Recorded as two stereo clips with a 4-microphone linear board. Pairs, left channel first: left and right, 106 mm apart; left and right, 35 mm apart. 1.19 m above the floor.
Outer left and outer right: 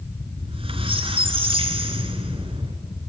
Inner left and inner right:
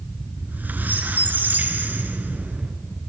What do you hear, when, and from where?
0.4 s a squeak: 65° right (ahead or behind), 2 m